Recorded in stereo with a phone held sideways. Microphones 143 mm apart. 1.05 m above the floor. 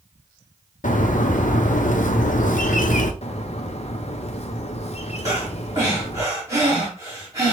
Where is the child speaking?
No child speaking in this recording.